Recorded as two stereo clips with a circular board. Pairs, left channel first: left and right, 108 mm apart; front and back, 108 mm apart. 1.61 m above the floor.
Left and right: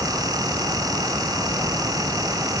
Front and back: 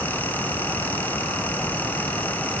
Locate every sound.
Only background noise.